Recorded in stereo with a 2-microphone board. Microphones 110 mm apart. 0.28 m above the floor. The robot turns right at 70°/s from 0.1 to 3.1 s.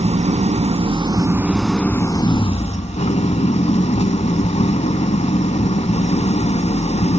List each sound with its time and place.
0.0 s an engine running: 110° right, 0.7 m; by 7.2 s 100° left, 0.7 m